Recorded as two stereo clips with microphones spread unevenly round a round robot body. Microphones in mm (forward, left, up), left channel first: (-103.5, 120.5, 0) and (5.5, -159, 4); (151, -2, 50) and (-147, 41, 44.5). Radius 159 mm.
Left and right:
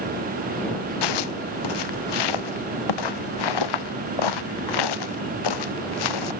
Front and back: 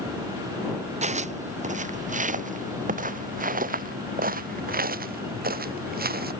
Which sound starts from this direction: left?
Footsteps, at 1.0 s.